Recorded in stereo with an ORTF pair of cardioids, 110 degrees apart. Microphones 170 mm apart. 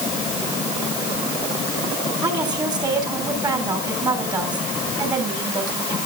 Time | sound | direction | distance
2.2 | a woman speaking | 25° right | 6.5 m